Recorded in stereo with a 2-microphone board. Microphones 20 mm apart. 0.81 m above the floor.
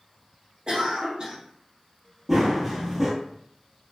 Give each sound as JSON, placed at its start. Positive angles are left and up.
{"t": 0.7, "sound": "a cough", "side_deg": -40, "distance_m": 0.8}
{"t": 2.3, "sound": "running footsteps", "side_deg": -10, "distance_m": 0.8}